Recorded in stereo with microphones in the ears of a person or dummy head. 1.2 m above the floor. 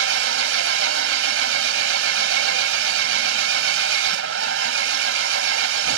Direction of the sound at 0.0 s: 85° right.